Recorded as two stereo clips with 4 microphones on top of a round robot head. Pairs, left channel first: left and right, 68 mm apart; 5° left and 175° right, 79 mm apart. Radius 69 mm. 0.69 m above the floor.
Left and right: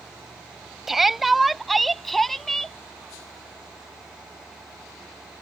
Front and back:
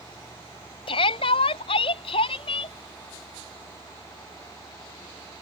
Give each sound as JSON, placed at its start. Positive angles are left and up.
{"t": 0.9, "sound": "a shout", "azimuth_deg": -5}